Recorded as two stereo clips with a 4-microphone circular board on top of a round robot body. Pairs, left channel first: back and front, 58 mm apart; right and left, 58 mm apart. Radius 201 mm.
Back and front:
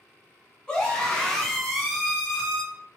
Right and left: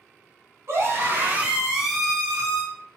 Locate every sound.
0.7 s a scream: 105° left, 1.3 m; by 2.6 s 65° right, 1.1 m